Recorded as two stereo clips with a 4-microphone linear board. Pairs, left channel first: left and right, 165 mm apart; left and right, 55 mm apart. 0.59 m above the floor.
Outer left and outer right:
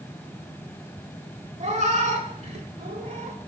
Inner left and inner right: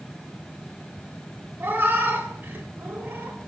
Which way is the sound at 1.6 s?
45° right (ahead or behind).